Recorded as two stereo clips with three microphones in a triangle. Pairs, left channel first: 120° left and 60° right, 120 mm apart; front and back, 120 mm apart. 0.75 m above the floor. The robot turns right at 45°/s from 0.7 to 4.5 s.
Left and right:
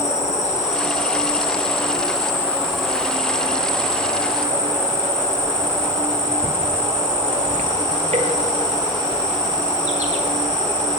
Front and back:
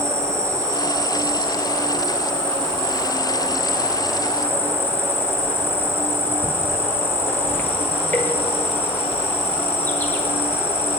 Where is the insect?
115° left, 1.8 m; by 11.0 s 75° right, 1.8 m.